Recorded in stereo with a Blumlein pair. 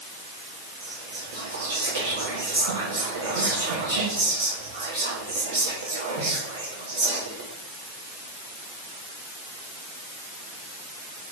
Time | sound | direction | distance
0.8 | whispering | 65° right | 1.3 m